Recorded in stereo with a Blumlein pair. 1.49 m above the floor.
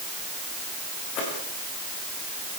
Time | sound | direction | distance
1.1 | footsteps | 35° left | 10 m